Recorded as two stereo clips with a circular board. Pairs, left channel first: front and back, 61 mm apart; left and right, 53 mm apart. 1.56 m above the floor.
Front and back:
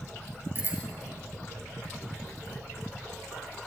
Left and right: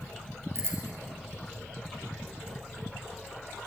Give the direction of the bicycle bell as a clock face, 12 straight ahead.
4 o'clock.